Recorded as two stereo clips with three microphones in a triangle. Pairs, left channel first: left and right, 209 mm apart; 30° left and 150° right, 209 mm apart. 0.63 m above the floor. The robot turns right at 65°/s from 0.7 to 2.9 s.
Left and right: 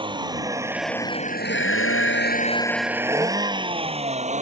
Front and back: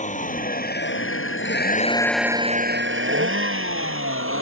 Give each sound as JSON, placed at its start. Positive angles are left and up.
{"t": 0.0, "sound": "a vehicle", "azimuth_deg": -25}